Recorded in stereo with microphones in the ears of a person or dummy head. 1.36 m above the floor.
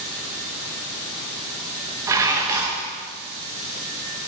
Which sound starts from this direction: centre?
Dishes clattering, at 2.1 s.